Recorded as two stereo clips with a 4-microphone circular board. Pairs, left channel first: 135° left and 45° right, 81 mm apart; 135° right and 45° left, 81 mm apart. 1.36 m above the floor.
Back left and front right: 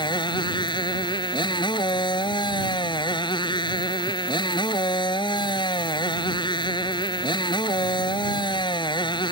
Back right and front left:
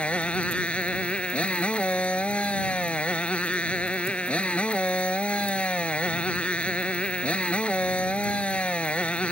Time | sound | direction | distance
0.0 | a motorcycle | 150° left | ?